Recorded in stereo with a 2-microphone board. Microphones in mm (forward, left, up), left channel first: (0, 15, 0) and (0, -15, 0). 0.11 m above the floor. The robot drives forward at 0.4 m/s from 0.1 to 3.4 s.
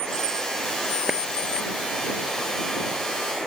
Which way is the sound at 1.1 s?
15° right (ahead or behind).